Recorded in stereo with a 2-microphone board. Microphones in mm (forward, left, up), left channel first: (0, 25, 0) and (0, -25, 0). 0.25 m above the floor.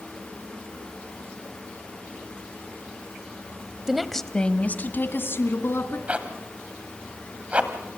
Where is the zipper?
25° right (ahead or behind), 1.6 m.